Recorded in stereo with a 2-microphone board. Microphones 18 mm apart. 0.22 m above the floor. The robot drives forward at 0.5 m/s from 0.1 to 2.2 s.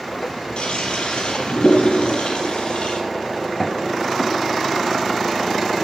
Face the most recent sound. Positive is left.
turn(degrees=80)